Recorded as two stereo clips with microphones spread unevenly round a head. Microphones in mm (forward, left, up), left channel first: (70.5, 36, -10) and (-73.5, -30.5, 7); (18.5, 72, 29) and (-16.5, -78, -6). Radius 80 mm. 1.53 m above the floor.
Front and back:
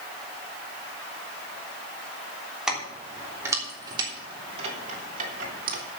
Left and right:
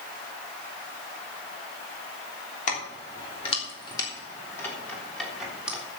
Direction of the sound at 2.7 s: 120° left.